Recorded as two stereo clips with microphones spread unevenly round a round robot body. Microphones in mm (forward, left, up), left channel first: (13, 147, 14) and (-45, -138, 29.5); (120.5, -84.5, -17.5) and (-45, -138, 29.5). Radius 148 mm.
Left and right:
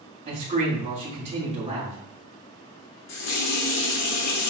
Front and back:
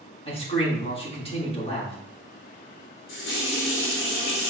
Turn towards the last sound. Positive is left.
turn(degrees=40)